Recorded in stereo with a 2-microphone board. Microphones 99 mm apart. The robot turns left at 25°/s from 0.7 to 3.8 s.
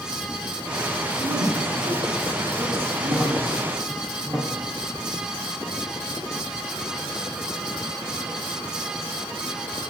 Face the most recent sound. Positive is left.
turn(degrees=-5)  # may be behind; listen again after turning